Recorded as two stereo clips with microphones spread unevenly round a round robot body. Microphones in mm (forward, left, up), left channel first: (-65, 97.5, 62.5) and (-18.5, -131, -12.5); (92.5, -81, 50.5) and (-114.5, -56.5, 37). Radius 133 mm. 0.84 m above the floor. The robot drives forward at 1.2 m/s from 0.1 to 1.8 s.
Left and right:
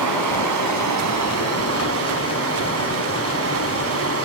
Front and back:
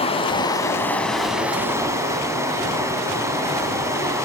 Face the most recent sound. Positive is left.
turn(degrees=-110)